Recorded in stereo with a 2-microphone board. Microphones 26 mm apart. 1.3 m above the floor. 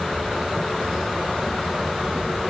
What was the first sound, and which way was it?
Only background noise.